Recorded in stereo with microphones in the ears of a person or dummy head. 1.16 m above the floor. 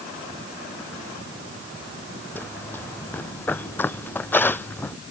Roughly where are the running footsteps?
Centre.